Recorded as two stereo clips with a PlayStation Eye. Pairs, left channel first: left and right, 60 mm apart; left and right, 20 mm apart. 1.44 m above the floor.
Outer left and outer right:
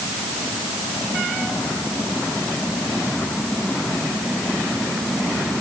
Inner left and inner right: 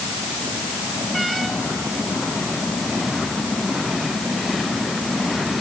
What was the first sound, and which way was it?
Only background noise.